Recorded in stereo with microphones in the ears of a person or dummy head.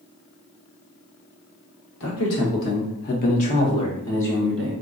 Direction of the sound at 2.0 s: 75° left (ahead or behind).